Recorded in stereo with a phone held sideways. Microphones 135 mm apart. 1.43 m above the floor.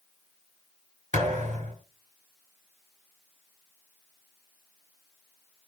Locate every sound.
1.1 s a thud: 65° right (ahead or behind), 4.5 m